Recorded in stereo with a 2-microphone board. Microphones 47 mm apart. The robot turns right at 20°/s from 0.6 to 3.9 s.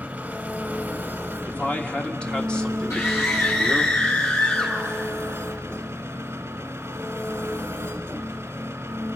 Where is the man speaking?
135° left, 1.5 m; by 3.9 s 175° right, 1.5 m.